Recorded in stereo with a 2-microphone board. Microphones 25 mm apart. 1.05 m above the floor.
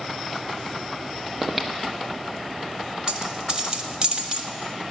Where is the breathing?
10° right (ahead or behind), 1.0 m.